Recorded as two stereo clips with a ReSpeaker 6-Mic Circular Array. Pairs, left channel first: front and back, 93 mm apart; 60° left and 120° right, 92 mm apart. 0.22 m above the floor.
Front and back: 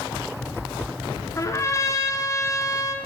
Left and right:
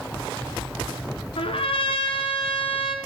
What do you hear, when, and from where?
1.4 s a trumpet: 60° left, 1.2 m